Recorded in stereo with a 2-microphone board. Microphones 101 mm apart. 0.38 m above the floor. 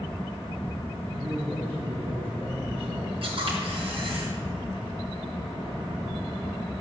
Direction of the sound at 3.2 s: 60° right (ahead or behind).